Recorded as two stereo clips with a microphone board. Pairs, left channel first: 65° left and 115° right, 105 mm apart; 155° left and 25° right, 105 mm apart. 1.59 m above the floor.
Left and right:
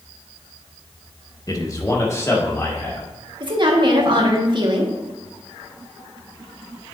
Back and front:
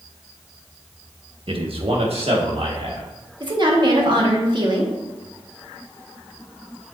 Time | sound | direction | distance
1.5 | a man speaking | 10° left | 1.0 m
3.4 | a woman speaking | 70° right | 1.5 m